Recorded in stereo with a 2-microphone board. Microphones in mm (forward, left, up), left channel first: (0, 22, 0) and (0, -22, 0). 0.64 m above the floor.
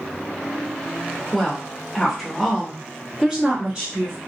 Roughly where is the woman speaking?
Centre.